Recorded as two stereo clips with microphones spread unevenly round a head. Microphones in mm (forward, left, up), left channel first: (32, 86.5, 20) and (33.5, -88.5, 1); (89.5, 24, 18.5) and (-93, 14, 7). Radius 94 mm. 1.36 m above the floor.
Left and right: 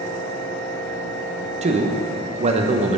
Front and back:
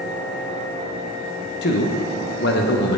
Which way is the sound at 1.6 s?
35° right.